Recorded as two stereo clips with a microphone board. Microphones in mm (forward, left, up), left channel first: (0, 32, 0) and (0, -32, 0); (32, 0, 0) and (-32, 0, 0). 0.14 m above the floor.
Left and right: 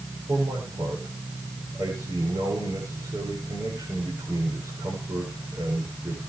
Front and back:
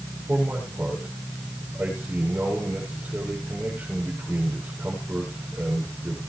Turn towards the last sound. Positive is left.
turn(degrees=-115)